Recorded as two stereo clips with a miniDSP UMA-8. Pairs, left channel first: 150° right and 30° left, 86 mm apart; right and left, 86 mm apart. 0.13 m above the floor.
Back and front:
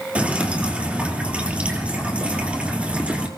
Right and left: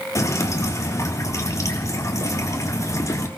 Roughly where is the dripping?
Ahead right.